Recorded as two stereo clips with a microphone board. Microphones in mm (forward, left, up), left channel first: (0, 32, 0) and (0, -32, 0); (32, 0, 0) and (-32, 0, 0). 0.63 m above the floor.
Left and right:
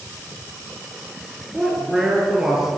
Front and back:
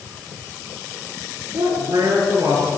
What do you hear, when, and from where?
1.5 s a man speaking: 175° right, 9 m; by 2.8 s 170° right, 9.5 m